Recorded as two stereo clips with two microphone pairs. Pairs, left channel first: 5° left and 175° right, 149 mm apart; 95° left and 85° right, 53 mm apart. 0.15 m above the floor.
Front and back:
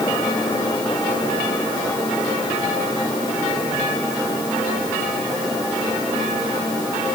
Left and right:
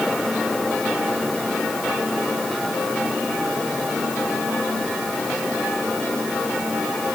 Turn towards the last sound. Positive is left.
No sound to turn to.